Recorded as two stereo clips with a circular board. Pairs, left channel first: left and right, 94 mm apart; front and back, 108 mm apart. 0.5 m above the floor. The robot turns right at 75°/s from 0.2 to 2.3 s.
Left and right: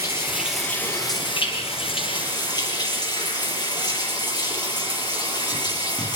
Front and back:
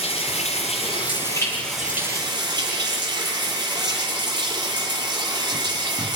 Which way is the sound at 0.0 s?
25° right.